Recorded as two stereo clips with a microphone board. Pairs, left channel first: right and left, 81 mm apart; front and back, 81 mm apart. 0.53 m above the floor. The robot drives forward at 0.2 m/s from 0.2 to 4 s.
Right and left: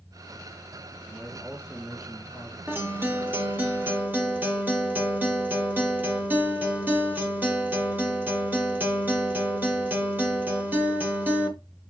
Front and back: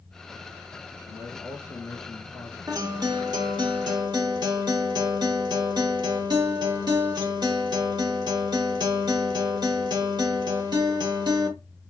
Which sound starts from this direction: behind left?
A guitar, at 2.7 s.